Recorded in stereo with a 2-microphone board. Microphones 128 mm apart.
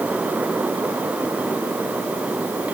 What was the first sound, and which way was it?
Only background noise.